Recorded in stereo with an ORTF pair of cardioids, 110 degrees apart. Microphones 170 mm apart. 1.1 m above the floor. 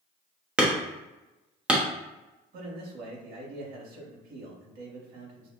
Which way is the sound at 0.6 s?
5° right.